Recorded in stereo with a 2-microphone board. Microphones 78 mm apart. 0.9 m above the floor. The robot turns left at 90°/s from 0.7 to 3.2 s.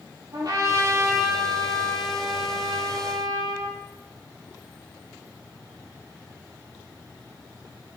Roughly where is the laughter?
I don't hear laughter.